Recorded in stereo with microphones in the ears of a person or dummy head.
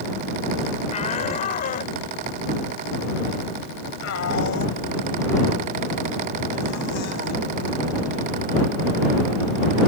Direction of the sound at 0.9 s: 35° left (ahead or behind).